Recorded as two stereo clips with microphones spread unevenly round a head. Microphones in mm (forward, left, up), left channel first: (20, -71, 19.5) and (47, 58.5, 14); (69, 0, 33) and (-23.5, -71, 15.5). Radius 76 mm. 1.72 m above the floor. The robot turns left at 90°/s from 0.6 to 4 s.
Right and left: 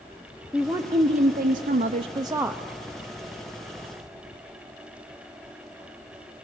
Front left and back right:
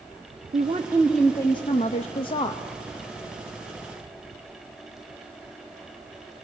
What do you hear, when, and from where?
0.5 s a woman speaking: 170° left, 0.6 m; by 2.6 s 10° right, 0.6 m